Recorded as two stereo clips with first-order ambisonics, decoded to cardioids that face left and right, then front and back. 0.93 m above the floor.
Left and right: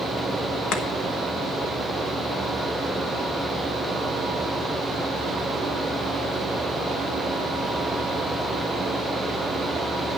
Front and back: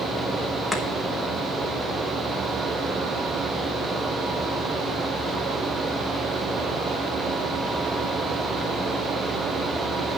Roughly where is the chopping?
Left.